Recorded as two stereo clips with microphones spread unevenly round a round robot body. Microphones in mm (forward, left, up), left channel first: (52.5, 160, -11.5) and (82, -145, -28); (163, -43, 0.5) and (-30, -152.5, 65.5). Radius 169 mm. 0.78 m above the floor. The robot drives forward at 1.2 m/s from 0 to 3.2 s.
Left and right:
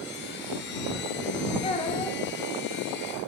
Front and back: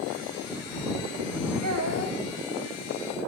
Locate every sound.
1.6 s a child speaking: 170° left, 3 m; by 2.2 s 175° left, 4 m